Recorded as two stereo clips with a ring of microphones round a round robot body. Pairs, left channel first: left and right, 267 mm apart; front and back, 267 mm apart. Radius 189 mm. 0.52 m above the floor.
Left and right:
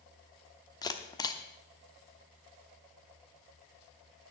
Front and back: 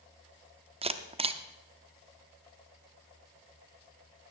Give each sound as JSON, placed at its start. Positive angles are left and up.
{"t": 0.8, "sound": "a camera shutter", "azimuth_deg": 145, "distance_m": 0.8}